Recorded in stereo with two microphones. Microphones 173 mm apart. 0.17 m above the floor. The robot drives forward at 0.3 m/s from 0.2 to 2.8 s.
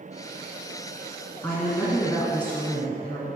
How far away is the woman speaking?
About 1.3 m.